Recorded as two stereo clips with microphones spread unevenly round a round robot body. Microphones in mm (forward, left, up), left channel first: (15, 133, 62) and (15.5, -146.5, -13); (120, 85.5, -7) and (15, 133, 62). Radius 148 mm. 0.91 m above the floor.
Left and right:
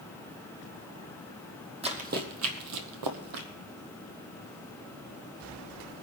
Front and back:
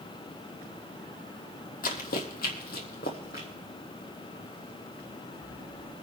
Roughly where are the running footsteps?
Ahead.